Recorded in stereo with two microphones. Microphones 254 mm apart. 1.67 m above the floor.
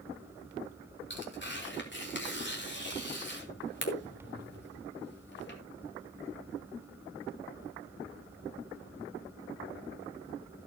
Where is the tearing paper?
45° left (ahead or behind), 3.5 m.